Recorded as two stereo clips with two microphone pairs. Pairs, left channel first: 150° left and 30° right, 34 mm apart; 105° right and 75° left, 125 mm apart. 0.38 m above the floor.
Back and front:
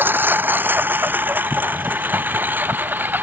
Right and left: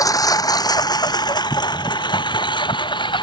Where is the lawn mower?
45° right; by 3.2 s 55° right.